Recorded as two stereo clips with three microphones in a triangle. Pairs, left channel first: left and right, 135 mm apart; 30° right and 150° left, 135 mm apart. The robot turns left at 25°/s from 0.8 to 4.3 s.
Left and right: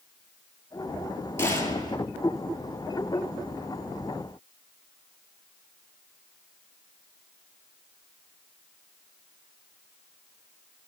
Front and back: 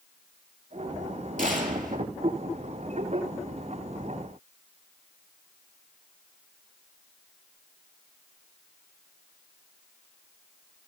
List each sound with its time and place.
1.4 s a gunshot: 160° left, 3.5 m; by 2.0 s 145° left, 3.5 m